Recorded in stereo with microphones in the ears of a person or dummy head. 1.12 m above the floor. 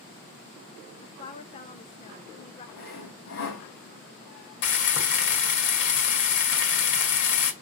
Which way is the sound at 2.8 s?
70° left (ahead or behind).